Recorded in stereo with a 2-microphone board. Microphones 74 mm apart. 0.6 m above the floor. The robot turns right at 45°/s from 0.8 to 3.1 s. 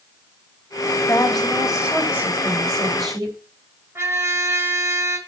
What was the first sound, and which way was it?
A woman speaking, 160° left.